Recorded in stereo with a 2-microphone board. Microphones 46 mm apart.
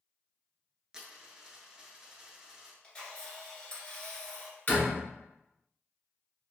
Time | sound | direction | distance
0.9 | a dropped coin | 20° right (ahead or behind) | 0.7 m
2.8 | a camera shutter | 20° left (ahead or behind) | 1.9 m
4.7 | a door slam | 35° left (ahead or behind) | 1.4 m